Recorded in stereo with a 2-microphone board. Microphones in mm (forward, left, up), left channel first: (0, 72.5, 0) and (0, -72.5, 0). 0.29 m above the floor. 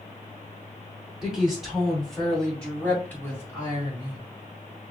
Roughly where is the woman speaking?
Centre.